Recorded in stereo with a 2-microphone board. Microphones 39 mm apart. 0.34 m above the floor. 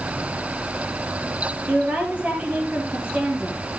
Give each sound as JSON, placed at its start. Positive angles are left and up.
{"t": 1.7, "sound": "a woman speaking", "side_deg": -40, "distance_m": 7.0}